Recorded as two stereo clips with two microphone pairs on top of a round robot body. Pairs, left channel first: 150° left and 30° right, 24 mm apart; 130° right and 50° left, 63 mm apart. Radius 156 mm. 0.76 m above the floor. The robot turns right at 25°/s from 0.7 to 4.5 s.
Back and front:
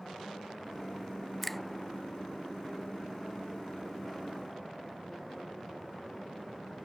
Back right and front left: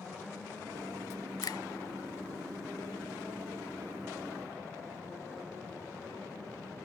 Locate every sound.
1.4 s a finger snap: 125° right; by 1.6 s 120° right